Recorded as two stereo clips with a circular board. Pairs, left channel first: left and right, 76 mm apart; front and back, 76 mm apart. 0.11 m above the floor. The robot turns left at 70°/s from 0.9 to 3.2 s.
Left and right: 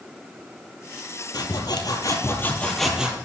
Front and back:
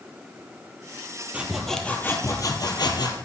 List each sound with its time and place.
1.3 s sawing: 105° left, 1.3 m; by 3.2 s 20° right, 1.3 m